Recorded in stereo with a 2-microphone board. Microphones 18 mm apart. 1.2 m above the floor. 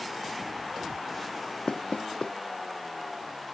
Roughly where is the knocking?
Left.